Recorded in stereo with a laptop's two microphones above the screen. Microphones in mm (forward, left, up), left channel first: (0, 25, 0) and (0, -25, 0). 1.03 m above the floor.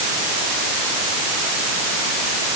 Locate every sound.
Only background noise.